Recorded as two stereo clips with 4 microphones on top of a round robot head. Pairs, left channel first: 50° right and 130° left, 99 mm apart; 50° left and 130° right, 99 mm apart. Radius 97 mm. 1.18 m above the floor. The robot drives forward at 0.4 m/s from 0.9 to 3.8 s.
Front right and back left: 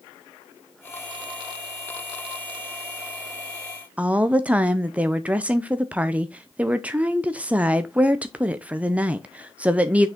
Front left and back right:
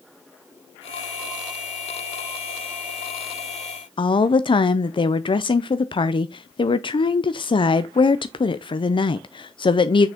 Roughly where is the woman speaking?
Ahead left.